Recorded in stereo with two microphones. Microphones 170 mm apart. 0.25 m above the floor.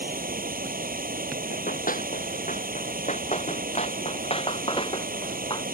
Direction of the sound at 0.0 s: 60° right (ahead or behind).